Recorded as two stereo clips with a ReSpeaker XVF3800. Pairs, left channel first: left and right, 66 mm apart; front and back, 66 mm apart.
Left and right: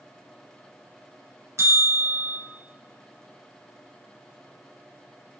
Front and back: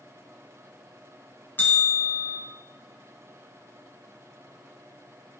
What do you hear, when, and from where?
1.6 s a bell: 60° right, 0.5 m